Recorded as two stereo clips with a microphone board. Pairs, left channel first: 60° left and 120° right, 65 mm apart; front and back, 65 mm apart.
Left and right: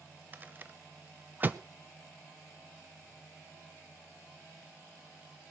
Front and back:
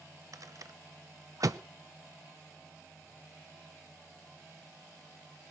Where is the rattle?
175° right, 0.7 m.